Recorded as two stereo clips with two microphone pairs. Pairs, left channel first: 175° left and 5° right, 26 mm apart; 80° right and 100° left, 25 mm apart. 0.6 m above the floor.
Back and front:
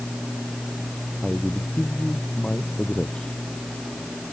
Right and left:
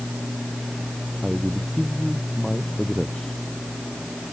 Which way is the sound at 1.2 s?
145° right.